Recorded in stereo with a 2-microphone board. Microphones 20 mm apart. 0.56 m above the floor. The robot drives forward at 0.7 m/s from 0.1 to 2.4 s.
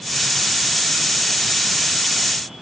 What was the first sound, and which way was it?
Only background noise.